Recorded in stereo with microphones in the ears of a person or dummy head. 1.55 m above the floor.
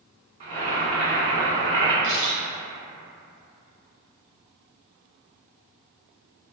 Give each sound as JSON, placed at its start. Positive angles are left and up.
{"t": 0.4, "sound": "boiling", "side_deg": -30, "distance_m": 0.7}
{"t": 2.0, "sound": "a camera shutter", "side_deg": -45, "distance_m": 1.3}